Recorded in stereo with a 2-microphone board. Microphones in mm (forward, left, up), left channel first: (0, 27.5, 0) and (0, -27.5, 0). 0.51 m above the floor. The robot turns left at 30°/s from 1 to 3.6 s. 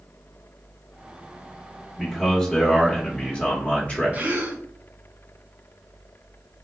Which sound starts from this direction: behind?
A man speaking, at 2.0 s.